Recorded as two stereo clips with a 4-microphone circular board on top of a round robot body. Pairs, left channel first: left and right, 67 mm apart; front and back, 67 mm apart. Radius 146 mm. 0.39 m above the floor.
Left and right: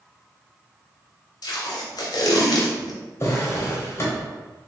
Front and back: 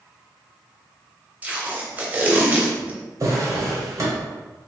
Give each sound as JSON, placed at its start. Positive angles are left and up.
{"t": 1.4, "sound": "tape being pulled", "azimuth_deg": 110, "distance_m": 0.7}
{"t": 3.2, "sound": "a drawer", "azimuth_deg": 140, "distance_m": 1.2}